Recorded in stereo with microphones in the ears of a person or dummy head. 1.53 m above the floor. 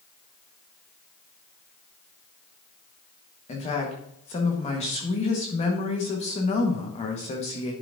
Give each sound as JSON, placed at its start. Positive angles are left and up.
{"t": 3.5, "sound": "a woman speaking", "side_deg": 35, "distance_m": 1.3}